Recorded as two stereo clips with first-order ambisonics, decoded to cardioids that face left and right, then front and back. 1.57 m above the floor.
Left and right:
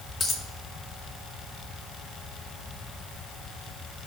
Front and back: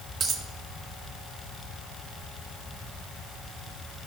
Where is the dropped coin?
135° left, 0.9 m.